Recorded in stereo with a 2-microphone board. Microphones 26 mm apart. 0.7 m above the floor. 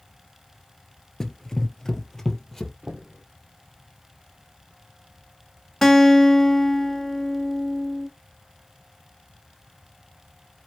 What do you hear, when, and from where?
1.2 s running footsteps: 15° left (ahead or behind), 0.7 m; by 2.7 s 10° left (ahead or behind), 1.2 m
2.8 s knocking: 70° right (ahead or behind), 1.2 m
5.8 s a guitar: 10° left (ahead or behind), 1.3 m